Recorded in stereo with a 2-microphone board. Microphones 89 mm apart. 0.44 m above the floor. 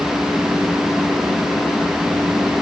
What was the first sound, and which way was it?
Only background noise.